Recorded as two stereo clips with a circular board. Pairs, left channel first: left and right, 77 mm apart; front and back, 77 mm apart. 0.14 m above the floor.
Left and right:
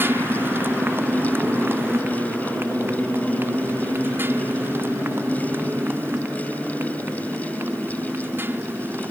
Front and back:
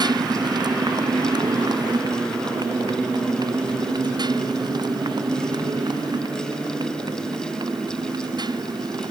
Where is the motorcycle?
155° right.